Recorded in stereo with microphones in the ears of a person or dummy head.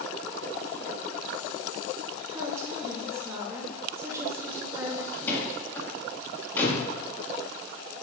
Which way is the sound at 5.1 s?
15° left (ahead or behind).